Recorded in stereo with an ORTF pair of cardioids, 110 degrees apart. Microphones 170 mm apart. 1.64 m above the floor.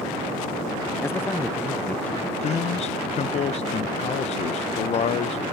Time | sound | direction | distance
1.0 | a man speaking | 15° left | 0.6 m
2.4 | a man speaking | 40° left | 0.8 m